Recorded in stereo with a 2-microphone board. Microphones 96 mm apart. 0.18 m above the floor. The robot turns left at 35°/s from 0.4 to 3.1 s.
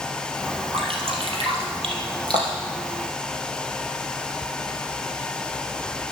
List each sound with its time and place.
0.7 s dripping: 70° right (ahead or behind), 3 m; by 2.8 s 35° right (ahead or behind), 3 m